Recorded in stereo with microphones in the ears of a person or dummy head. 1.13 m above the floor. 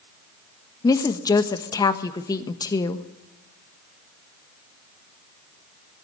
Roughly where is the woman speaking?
Left.